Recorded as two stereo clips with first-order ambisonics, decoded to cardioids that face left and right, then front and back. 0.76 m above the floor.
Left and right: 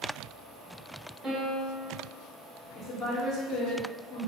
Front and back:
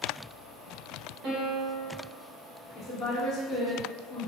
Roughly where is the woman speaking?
Ahead left.